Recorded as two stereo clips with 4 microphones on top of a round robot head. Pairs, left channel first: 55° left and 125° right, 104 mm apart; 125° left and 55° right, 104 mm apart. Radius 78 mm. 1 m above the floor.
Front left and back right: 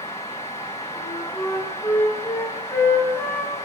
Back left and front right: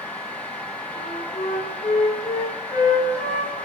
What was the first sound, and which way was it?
A flute, 125° left.